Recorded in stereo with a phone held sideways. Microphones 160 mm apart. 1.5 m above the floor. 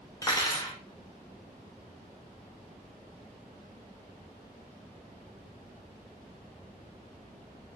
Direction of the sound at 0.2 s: 20° left (ahead or behind).